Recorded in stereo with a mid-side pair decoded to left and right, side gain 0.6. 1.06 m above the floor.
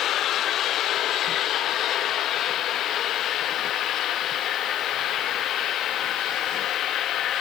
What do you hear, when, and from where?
Only background noise.